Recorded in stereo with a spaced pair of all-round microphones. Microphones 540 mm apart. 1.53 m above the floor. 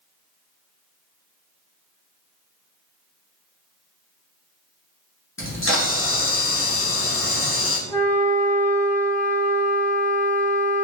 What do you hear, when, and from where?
5.4 s a camera shutter: 25° left (ahead or behind), 1.0 m
7.9 s a flute: 10° left (ahead or behind), 1.0 m